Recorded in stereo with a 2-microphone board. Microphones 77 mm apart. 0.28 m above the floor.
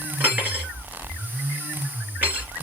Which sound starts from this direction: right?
Cutlery clinking, at 0.2 s.